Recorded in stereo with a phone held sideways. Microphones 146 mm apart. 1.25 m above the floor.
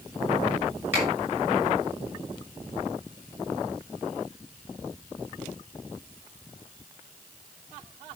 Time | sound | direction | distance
0.9 | a finger snap | 15° right (ahead or behind) | 6.5 m